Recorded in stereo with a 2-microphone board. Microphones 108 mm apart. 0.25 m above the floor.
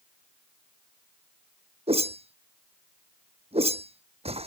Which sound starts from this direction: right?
A whoosh, at 1.9 s.